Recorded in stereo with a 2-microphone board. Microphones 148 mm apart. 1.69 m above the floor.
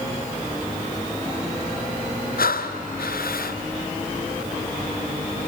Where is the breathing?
85° left, 0.7 m.